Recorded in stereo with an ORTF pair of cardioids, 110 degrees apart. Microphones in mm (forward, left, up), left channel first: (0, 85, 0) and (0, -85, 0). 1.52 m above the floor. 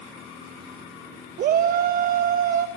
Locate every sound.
1.4 s a shout: 60° right, 1.4 m